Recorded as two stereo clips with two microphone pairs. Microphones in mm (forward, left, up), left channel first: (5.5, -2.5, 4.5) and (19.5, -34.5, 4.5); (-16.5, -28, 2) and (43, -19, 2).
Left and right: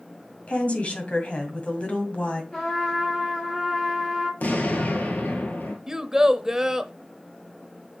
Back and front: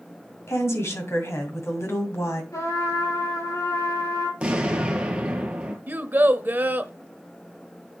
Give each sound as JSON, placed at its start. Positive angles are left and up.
{"t": 0.5, "sound": "a woman speaking", "azimuth_deg": 165, "distance_m": 2.0}
{"t": 2.5, "sound": "a trumpet", "azimuth_deg": -175, "distance_m": 5.0}
{"t": 4.4, "sound": "an explosion", "azimuth_deg": 80, "distance_m": 1.5}
{"t": 5.9, "sound": "a child speaking", "azimuth_deg": -5, "distance_m": 0.6}